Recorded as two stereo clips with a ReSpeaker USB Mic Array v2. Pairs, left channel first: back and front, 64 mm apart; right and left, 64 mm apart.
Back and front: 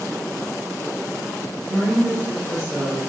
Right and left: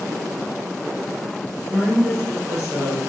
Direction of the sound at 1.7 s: 40° left.